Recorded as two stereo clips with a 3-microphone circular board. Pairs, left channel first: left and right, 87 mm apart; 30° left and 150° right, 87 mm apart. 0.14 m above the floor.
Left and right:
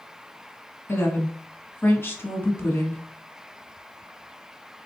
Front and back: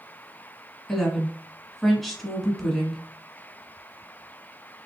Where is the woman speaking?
115° left, 1.1 m.